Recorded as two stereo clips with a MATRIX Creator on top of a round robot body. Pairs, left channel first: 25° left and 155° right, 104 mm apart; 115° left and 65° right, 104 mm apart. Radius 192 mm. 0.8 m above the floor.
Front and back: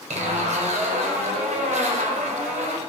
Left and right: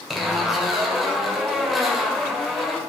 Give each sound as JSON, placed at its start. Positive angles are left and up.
{"t": 0.1, "sound": "a zipper", "azimuth_deg": -155, "distance_m": 1.5}